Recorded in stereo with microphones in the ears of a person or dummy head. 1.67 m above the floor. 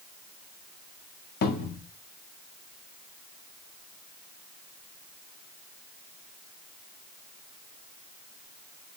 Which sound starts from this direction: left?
A cupboard door, at 1.4 s.